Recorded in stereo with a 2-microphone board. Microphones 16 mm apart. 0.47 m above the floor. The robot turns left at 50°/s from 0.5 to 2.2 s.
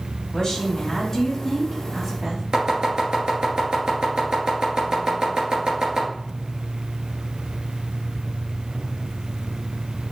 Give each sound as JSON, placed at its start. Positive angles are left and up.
{"t": 0.3, "sound": "a woman speaking", "azimuth_deg": 45, "distance_m": 4.0}
{"t": 2.5, "sound": "chopping", "side_deg": -50, "distance_m": 3.5}